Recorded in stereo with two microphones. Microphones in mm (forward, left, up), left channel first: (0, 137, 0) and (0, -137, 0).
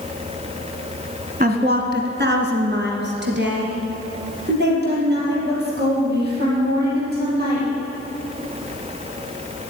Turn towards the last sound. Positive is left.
turn(degrees=-35)  # may be behind; listen again after turning